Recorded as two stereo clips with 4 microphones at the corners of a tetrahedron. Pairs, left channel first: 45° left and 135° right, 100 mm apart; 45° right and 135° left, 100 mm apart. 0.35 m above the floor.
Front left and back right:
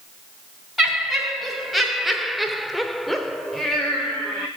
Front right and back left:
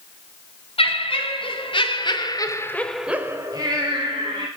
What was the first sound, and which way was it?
Laughter, 45° right.